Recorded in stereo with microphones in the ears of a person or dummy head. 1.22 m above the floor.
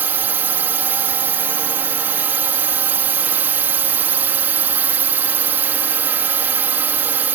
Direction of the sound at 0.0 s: 10° right (ahead or behind).